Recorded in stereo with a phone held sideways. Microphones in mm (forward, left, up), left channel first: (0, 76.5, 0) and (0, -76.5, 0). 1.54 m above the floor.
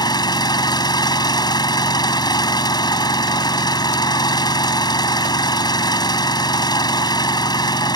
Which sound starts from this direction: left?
An engine running, at 0.0 s.